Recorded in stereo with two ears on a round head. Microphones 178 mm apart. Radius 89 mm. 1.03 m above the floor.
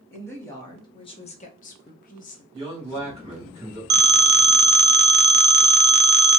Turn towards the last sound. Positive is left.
turn(degrees=-55)  # may be behind; listen again after turning